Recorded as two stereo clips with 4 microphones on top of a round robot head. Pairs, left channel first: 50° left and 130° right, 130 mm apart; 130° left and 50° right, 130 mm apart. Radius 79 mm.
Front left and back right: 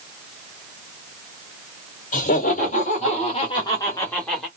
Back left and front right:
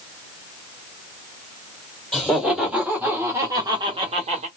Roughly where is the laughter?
Ahead left.